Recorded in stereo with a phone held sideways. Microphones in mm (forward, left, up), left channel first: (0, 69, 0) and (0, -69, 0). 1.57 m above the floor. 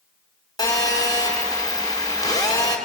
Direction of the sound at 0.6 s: 30° left (ahead or behind).